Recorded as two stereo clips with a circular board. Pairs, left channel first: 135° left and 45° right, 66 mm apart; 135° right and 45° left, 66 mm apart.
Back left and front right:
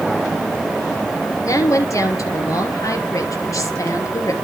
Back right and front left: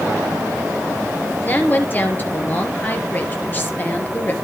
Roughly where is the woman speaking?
Behind.